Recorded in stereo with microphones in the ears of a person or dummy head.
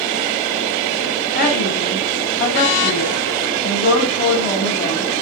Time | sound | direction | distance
1.3 | a woman speaking | 45° left (ahead or behind) | 7 m